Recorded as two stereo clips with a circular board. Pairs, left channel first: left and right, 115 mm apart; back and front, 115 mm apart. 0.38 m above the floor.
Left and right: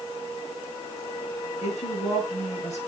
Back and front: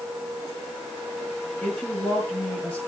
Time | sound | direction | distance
1.6 | a woman speaking | 100° left | 7 m